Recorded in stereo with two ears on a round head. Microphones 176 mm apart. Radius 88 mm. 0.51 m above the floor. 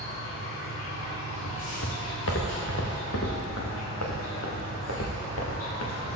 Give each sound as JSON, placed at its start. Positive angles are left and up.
{"t": 0.0, "sound": "an insect", "side_deg": 85, "distance_m": 6.5}
{"t": 1.4, "sound": "footsteps", "side_deg": 70, "distance_m": 3.5}